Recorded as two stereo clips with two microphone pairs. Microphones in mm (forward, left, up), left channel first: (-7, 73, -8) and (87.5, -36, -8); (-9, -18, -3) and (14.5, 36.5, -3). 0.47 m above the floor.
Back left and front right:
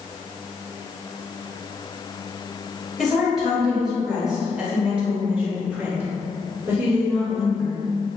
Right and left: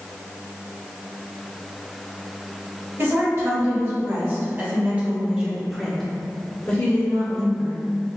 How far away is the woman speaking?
About 1.9 m.